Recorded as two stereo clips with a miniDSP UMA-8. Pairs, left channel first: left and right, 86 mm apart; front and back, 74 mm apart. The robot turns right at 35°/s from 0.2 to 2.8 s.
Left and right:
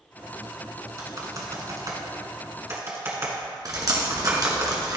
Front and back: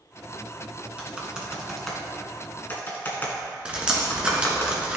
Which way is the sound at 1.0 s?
115° right.